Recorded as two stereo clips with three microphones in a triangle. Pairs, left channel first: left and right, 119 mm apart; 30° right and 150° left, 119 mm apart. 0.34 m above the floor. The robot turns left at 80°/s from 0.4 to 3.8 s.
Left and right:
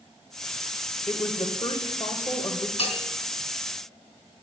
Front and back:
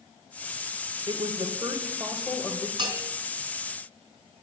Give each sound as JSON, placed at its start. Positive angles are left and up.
{"t": 1.1, "sound": "a woman speaking", "azimuth_deg": 155, "distance_m": 1.3}
{"t": 2.8, "sound": "a bell", "azimuth_deg": 110, "distance_m": 3.0}